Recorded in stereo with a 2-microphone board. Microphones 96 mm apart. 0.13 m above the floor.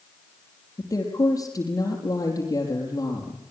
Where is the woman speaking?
40° left (ahead or behind), 4.5 m.